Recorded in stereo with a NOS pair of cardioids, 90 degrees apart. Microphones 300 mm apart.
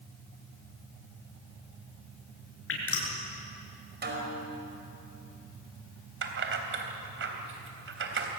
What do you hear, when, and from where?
2.7 s dripping: 45° left, 7 m
4.0 s a snare drum: 35° right, 5 m
6.2 s keys jangling: 40° right, 3.5 m